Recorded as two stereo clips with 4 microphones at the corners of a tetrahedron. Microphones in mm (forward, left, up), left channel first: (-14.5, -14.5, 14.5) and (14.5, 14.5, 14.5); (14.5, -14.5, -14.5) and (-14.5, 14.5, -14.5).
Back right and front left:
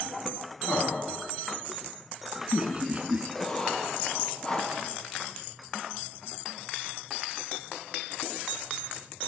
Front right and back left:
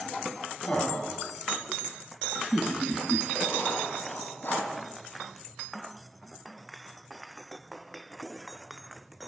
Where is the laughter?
85° right, 2.5 m; by 3.2 s 75° left, 2 m.